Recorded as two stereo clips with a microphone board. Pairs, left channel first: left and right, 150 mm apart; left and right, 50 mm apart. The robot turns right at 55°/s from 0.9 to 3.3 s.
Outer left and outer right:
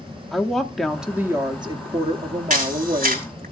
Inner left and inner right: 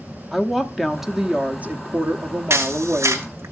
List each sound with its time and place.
0.3 s a woman speaking: straight behind, 0.8 m; by 3.3 s 50° right, 0.8 m
2.5 s a camera shutter: 65° right (ahead or behind), 3.5 m; by 3.5 s 60° right (ahead or behind), 3.5 m